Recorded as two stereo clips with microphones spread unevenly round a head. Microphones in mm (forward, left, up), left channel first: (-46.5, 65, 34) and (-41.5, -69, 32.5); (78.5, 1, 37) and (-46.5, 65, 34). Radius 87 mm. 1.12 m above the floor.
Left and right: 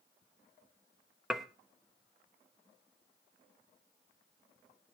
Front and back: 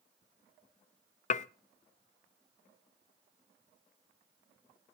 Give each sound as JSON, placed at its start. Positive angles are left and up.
{"t": 1.3, "sound": "dishes clattering", "azimuth_deg": 0, "distance_m": 0.5}